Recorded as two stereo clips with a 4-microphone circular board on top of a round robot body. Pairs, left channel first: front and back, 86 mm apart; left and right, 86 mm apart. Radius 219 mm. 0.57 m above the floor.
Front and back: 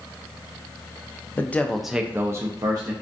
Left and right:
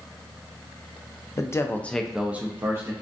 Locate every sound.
1.4 s a man speaking: 55° left, 0.6 m; by 2.9 s 145° right, 0.8 m